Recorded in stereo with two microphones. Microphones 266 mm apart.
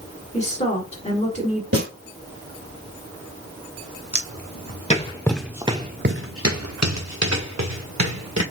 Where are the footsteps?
45° left (ahead or behind), 1.6 m; by 8.4 s 90° right, 2.5 m.